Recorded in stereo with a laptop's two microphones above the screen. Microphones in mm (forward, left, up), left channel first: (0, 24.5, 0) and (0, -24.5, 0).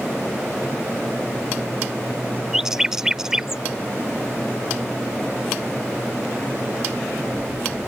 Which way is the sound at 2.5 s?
10° right (ahead or behind).